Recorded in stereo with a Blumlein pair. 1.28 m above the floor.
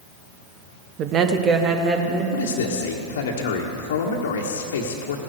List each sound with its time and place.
1.0 s a woman speaking: 35° right, 0.9 m; by 2.2 s 25° right, 2.5 m
2.3 s a man speaking: 60° left, 1.5 m